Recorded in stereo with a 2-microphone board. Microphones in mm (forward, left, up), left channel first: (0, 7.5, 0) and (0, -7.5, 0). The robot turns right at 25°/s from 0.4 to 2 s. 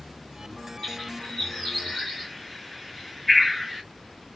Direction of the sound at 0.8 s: 50° left (ahead or behind).